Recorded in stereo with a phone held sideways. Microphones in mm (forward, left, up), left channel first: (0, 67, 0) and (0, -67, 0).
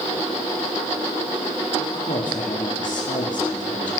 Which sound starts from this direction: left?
A woman speaking, at 1.8 s.